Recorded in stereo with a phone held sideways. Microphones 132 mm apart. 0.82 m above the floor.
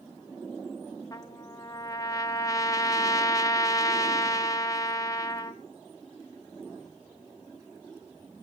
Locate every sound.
1.1 s a trumpet: 25° left (ahead or behind), 1.9 m